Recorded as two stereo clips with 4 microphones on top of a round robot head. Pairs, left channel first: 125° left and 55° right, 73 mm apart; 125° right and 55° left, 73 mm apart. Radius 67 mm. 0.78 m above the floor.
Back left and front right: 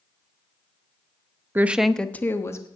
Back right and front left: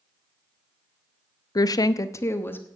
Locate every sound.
1.6 s a woman speaking: 110° right, 0.7 m; by 2.7 s 170° left, 1.2 m